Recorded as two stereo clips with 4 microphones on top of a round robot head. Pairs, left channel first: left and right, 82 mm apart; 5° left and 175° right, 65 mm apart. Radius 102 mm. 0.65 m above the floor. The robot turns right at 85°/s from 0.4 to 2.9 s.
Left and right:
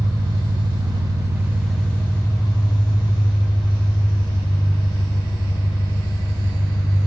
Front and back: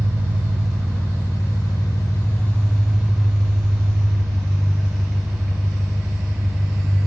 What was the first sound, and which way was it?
An engine running, 115° right.